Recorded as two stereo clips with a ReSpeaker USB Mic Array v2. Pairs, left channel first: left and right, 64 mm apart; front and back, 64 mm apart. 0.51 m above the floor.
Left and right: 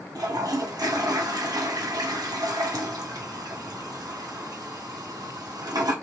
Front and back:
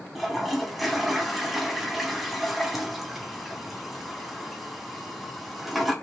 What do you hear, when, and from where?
0.1 s a toilet flushing: 90° right, 0.9 m